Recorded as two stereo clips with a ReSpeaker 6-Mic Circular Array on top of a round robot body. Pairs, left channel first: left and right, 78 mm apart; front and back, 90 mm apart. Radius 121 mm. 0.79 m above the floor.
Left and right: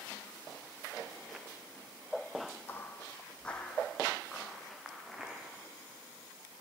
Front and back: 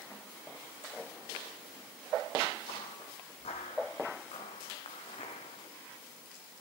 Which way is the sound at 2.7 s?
30° left.